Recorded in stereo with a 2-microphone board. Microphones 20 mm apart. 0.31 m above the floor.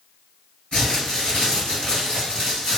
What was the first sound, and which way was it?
Crumpling, 60° left (ahead or behind).